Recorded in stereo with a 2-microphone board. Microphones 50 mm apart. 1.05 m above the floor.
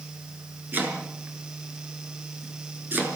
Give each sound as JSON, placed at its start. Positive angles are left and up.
{"t": 0.7, "sound": "chopping", "side_deg": -40, "distance_m": 5.0}